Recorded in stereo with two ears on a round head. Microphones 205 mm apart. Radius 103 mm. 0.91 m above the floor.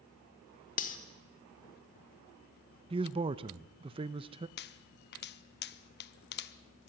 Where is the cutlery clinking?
40° left (ahead or behind), 1.5 m.